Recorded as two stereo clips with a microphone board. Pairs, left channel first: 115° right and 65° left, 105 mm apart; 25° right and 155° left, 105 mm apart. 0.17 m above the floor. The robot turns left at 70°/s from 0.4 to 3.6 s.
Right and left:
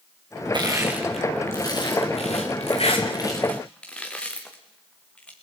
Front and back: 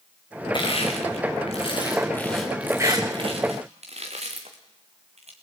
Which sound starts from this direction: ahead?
Crushing, at 0.5 s.